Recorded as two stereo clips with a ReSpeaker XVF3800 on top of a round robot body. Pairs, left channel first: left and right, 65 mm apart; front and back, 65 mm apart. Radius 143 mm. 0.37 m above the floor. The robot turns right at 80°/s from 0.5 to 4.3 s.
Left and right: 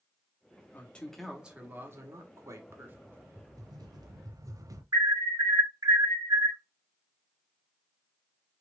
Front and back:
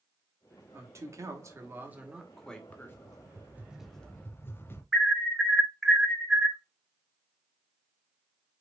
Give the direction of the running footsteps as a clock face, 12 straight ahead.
I don't hear running footsteps.